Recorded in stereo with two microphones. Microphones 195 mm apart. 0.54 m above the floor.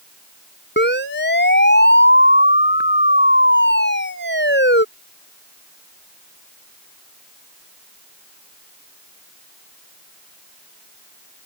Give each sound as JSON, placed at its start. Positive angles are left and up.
{"t": 0.8, "sound": "a siren", "side_deg": 65}